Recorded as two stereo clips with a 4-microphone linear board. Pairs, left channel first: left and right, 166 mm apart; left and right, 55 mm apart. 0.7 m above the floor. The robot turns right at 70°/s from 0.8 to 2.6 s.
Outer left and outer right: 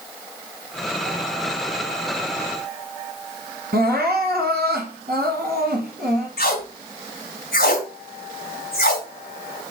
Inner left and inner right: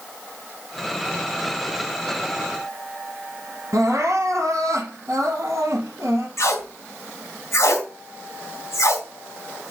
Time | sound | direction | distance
3.7 | crying | 80° right | 4 m
6.4 | tape being pulled | 75° left (ahead or behind) | 2.5 m